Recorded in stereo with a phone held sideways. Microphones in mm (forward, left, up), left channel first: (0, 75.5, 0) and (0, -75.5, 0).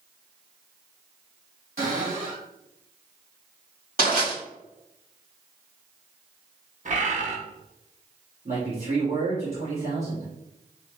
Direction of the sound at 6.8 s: 50° right (ahead or behind).